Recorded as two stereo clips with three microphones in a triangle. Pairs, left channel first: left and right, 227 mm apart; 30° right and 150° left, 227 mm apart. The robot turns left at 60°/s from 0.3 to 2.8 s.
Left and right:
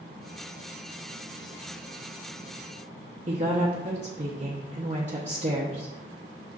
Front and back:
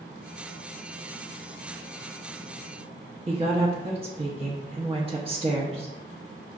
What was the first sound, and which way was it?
A woman speaking, 145° right.